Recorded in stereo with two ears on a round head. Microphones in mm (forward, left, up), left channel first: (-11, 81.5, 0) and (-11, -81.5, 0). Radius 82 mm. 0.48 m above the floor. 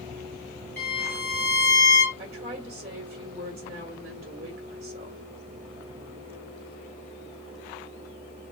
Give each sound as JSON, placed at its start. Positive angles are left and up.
{"t": 0.8, "sound": "a violin", "side_deg": 10, "distance_m": 3.5}
{"t": 2.2, "sound": "a woman speaking", "side_deg": -35, "distance_m": 2.0}